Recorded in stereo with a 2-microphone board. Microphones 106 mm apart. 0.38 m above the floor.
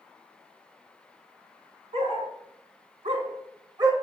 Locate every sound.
1.9 s a dog barking: 85° right, 1.4 m; by 3.9 s 40° right (ahead or behind), 1.1 m